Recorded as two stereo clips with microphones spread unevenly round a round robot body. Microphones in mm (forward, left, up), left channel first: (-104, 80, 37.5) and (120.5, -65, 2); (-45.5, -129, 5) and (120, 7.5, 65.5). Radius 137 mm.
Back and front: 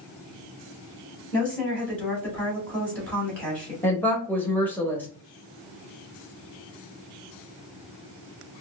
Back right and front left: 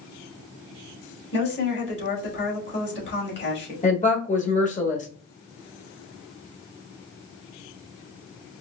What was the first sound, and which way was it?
A woman speaking, 125° right.